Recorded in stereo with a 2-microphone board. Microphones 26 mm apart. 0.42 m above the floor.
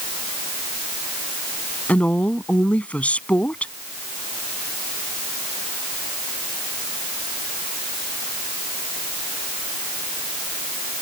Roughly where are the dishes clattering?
No dishes clattering in this recording.